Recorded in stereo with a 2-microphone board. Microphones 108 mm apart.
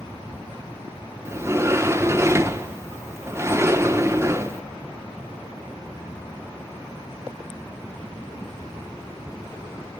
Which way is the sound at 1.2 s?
25° right (ahead or behind).